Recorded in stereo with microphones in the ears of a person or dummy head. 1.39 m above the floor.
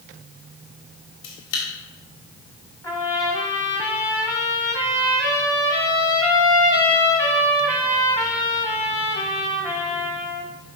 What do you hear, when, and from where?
1.2 s a camera shutter: 75° left (ahead or behind), 1.8 m
2.8 s a trumpet: 20° left (ahead or behind), 0.9 m